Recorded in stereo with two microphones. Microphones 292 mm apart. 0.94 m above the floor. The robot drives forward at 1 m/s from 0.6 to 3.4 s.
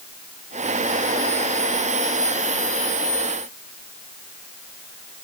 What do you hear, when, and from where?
Only background noise.